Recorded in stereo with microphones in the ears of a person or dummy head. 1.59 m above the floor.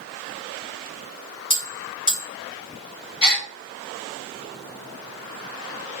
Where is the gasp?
25° left (ahead or behind), 0.9 m.